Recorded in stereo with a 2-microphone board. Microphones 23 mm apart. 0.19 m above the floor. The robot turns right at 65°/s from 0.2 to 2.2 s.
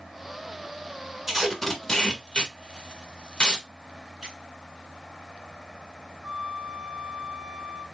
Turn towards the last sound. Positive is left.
turn(degrees=-30)  # may be behind; listen again after turning